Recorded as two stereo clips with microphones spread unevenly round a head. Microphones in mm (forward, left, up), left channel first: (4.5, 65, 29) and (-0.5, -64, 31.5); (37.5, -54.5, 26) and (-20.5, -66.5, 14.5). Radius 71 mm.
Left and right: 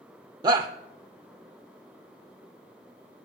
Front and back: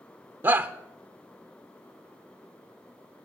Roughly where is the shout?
Behind right.